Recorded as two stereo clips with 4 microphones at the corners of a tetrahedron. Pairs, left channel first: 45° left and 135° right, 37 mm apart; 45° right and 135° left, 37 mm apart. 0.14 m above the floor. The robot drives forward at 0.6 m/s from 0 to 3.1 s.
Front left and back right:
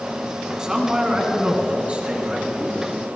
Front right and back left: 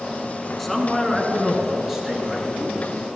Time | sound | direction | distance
0.6 | a man speaking | 115° right | 1.7 m